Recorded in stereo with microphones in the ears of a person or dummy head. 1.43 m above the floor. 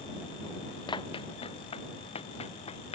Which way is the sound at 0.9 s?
25° left (ahead or behind).